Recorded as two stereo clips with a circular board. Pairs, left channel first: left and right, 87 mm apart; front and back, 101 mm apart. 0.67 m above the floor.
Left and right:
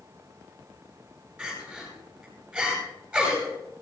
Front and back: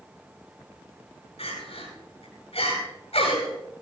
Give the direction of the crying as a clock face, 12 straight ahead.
12 o'clock.